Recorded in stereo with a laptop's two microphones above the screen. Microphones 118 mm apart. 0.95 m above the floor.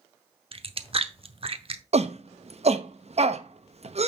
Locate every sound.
0.5 s chewing: 55° right (ahead or behind), 0.8 m
1.9 s a shout: 65° right (ahead or behind), 0.9 m